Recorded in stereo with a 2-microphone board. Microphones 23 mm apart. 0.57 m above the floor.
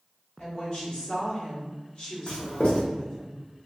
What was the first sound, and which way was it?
A woman speaking, 50° left (ahead or behind).